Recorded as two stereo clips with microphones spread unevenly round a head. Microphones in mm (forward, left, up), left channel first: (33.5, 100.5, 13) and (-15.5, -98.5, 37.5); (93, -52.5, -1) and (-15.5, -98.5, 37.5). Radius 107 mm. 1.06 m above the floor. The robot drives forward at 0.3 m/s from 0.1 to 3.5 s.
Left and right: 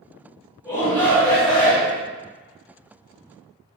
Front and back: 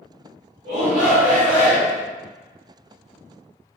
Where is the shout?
150° left, 1.0 m; by 2.0 s 160° left, 1.3 m.